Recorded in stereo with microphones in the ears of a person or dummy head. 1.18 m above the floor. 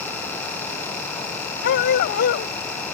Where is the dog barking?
60° left (ahead or behind).